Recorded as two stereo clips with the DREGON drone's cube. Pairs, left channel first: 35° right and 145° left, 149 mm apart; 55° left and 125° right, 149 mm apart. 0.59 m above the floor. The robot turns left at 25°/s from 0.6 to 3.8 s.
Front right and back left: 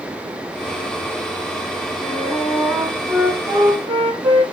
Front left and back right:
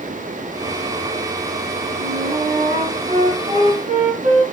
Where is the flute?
120° right, 4.5 m; by 4.4 s 165° right, 4.5 m.